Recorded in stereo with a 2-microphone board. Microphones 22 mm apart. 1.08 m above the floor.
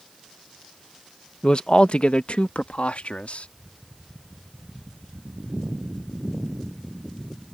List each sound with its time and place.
1.4 s a man speaking: 40° left (ahead or behind); by 3.5 s 75° left (ahead or behind)